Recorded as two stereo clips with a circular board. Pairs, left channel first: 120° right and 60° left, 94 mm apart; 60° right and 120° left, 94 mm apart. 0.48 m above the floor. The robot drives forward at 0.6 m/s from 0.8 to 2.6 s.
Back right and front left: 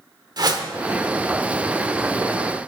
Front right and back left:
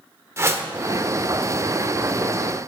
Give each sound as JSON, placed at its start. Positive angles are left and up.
{"t": 0.4, "sound": "a whoosh", "azimuth_deg": 75, "distance_m": 1.2}